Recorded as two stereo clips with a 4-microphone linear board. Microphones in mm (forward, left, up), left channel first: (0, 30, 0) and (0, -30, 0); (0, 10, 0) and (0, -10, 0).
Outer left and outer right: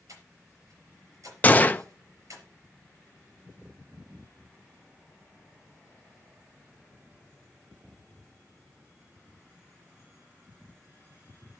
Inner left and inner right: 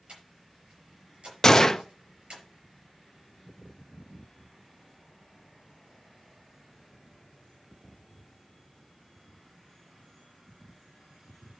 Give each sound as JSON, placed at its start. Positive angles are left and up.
{"t": 0.1, "sound": "breathing", "side_deg": -65, "distance_m": 4.5}
{"t": 1.4, "sound": "a gunshot", "side_deg": 25, "distance_m": 0.5}